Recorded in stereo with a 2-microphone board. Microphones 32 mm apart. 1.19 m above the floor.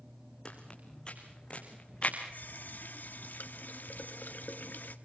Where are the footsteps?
30° left (ahead or behind), 4 m; by 2.2 s 40° left (ahead or behind), 5 m.